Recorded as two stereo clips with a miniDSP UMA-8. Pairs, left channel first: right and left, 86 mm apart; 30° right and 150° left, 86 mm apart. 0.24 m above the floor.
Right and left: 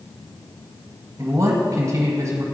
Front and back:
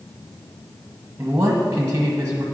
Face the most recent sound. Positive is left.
turn(degrees=100)